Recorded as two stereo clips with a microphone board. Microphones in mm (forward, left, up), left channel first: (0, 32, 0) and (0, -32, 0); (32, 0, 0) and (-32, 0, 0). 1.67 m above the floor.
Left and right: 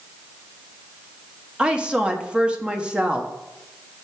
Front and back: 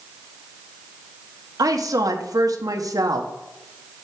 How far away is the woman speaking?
About 1.3 m.